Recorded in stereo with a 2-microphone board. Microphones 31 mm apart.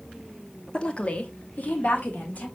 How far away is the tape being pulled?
No tape being pulled in this recording.